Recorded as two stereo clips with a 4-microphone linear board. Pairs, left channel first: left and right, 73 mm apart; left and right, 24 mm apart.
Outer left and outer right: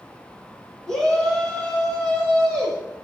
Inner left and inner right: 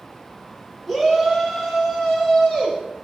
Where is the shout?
15° left (ahead or behind), 2.5 m; by 2.8 s 40° left (ahead or behind), 2 m.